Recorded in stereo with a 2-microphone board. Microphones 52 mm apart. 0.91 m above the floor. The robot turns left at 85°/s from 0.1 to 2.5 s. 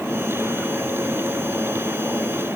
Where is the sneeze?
I don't hear a sneeze.